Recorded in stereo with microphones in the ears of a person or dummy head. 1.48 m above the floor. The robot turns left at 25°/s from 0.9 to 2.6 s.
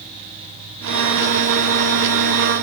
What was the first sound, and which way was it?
Only background noise.